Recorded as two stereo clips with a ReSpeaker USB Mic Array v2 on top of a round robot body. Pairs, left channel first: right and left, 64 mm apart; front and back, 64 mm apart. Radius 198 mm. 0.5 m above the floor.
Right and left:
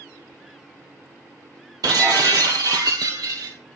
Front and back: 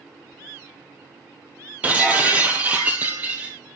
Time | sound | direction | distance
1.8 | breaking glass | 115° left | 1.7 m